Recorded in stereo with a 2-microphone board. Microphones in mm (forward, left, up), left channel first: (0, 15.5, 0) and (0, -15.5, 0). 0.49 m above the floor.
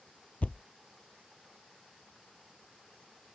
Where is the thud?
55° left (ahead or behind).